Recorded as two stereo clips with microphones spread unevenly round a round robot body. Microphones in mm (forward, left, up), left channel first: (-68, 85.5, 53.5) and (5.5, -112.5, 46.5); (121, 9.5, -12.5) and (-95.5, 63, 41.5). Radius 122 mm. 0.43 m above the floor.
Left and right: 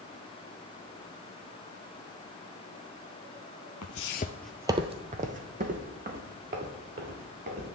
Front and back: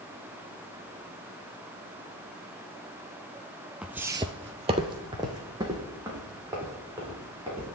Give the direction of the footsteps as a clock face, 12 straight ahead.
9 o'clock.